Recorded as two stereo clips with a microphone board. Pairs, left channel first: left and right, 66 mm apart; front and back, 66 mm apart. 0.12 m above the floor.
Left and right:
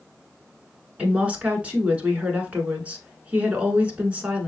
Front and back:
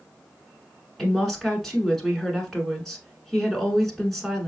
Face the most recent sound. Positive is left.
turn(degrees=-80)